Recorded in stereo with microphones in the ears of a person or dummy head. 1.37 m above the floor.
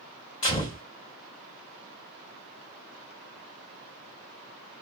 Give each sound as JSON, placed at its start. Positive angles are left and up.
{"t": 0.4, "sound": "a gunshot", "side_deg": 30, "distance_m": 1.1}